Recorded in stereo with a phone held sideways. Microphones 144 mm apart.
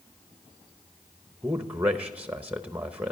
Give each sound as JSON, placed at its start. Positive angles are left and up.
{"t": 1.4, "sound": "a man speaking", "side_deg": -10, "distance_m": 0.7}